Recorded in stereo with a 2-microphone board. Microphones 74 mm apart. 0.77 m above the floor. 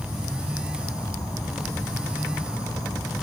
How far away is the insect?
About 7 m.